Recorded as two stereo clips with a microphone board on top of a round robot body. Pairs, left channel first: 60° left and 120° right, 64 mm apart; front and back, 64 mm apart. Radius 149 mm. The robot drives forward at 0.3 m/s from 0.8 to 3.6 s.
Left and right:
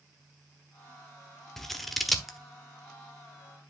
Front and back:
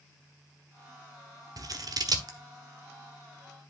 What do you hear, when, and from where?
1.6 s scissors: 145° left, 1.1 m; by 2.4 s 150° left, 1.3 m